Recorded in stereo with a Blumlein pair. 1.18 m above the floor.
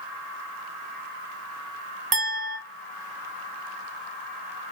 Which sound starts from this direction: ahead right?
A clink, at 2.1 s.